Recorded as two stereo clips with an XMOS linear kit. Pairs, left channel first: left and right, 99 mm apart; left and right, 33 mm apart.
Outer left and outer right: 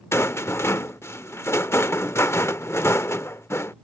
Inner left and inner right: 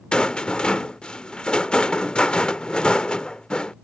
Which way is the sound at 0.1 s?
25° left (ahead or behind).